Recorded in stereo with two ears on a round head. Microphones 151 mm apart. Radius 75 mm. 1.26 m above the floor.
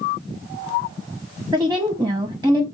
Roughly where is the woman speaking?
Centre.